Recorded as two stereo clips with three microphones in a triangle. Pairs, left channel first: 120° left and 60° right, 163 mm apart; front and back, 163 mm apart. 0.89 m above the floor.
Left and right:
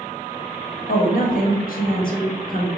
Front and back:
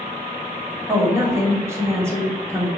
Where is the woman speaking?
110° left, 1.1 m.